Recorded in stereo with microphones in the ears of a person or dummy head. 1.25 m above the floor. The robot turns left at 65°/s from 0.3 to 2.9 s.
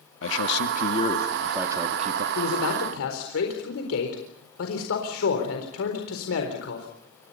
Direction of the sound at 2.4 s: 115° left.